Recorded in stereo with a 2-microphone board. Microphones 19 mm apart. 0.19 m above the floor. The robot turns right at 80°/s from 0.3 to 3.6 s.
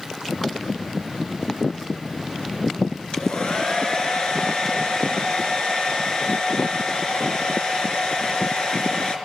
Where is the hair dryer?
80° left, 3 m; by 9.2 s 120° left, 3 m.